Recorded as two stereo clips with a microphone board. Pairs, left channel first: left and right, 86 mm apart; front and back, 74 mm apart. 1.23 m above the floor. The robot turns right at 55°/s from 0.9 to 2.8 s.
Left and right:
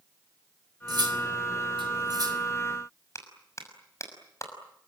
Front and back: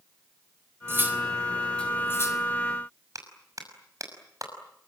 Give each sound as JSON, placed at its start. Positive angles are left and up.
{"t": 0.9, "sound": "cutlery clinking", "azimuth_deg": -125, "distance_m": 3.0}
{"t": 3.1, "sound": "a clap", "azimuth_deg": 145, "distance_m": 6.0}